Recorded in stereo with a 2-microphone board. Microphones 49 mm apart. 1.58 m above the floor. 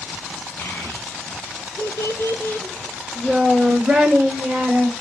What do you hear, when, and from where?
0.6 s a child speaking: 60° left (ahead or behind), 1.8 m; by 4.9 s 15° right (ahead or behind), 1.9 m